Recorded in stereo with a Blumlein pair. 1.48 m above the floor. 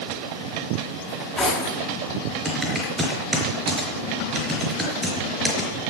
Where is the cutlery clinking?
10° left, 7.5 m.